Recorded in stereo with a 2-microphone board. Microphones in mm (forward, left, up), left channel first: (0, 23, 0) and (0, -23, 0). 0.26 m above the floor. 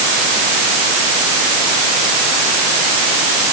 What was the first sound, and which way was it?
Only background noise.